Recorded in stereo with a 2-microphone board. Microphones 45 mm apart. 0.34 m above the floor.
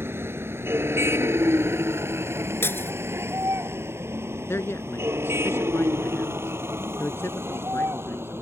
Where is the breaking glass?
65° left (ahead or behind).